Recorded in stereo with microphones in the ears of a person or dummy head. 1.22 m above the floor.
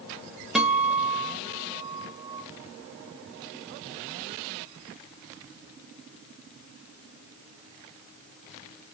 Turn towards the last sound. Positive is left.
turn(degrees=0)  # may be behind; listen again after turning